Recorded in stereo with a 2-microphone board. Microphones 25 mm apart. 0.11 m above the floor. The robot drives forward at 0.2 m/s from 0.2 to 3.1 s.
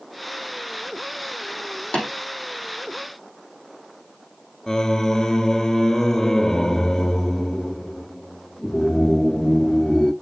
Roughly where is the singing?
Left.